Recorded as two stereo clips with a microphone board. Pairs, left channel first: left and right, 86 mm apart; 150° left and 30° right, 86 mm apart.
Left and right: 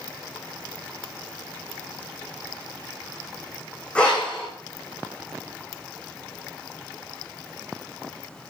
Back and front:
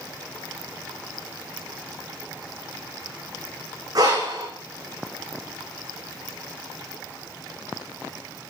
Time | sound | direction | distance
4.0 | breathing | 10° left | 4.5 m